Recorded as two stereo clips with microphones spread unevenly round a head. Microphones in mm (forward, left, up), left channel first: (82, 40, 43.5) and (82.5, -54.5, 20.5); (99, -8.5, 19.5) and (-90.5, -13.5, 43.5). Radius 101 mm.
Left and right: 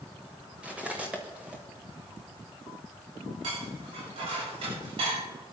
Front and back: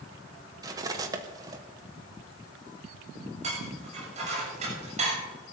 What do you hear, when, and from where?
0.6 s cutlery clinking: 170° left, 0.8 m
3.4 s dishes clattering: 125° right, 7 m